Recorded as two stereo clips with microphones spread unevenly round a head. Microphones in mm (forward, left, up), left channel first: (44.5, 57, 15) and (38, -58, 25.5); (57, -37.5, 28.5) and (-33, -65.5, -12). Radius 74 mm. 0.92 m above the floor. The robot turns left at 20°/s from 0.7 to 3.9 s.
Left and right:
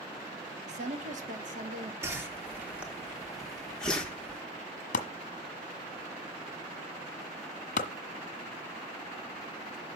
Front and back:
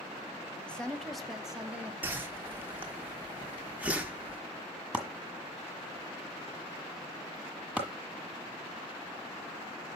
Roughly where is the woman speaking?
Right.